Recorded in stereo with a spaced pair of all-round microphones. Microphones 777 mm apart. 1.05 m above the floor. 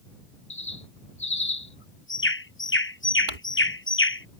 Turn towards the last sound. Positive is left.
turn(degrees=-75)  # may be behind; listen again after turning